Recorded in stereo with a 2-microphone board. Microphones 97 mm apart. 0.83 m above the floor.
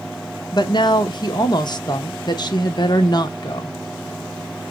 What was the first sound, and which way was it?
A woman speaking, 50° left (ahead or behind).